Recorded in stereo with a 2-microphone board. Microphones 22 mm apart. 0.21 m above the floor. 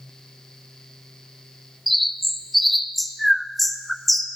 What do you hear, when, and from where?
1.9 s a bird: centre (ahead or behind), 0.5 m